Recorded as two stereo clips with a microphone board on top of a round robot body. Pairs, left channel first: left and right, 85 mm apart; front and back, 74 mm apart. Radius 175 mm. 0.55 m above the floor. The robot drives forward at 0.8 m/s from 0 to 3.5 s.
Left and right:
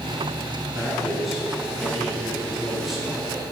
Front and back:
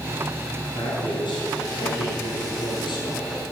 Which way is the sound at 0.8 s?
Straight ahead.